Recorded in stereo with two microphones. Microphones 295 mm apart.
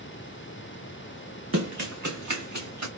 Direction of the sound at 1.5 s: 60° right (ahead or behind).